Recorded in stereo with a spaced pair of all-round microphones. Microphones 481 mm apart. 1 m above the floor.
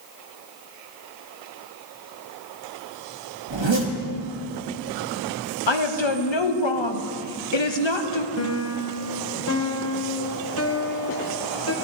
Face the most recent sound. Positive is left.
turn(degrees=30)  # may be behind; listen again after turning